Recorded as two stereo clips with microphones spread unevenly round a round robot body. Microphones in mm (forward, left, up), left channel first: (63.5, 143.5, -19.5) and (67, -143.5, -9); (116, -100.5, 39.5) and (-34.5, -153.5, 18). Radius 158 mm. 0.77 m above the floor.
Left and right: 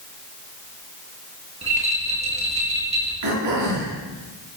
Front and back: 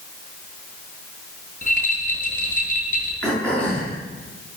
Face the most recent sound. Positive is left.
turn(degrees=-65)